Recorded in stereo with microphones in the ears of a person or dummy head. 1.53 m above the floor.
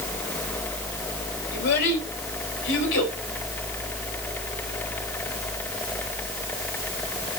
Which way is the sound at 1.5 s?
70° left (ahead or behind).